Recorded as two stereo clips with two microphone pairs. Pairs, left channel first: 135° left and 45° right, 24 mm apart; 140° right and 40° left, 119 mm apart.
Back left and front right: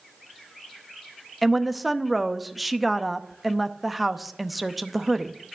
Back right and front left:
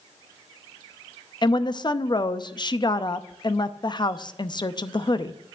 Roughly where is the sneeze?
No sneeze in this recording.